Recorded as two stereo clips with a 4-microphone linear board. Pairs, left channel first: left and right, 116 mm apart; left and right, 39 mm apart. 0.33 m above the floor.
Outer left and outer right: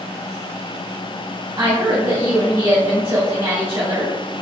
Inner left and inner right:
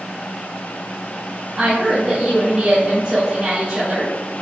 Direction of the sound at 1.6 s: 45° right (ahead or behind).